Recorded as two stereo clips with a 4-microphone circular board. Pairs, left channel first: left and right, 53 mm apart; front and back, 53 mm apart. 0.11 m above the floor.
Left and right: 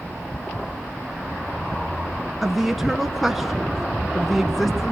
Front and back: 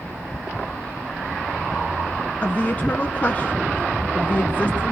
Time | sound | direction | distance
2.4 | a woman speaking | straight ahead | 1.3 m